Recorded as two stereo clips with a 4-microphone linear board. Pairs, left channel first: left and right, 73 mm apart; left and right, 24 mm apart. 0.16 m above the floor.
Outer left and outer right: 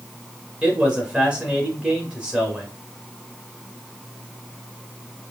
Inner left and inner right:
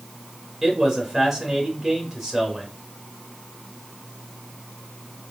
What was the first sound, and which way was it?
A man speaking, 15° right (ahead or behind).